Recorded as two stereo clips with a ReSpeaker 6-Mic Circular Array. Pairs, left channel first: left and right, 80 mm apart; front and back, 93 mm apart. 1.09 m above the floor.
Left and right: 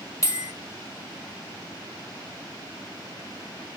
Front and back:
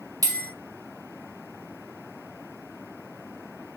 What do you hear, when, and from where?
0.2 s a bell: 135° left, 1.0 m